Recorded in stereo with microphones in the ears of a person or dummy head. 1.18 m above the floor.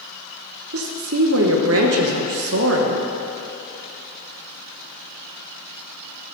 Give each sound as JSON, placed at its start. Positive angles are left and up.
{"t": 0.7, "sound": "a woman speaking", "side_deg": -65, "distance_m": 1.1}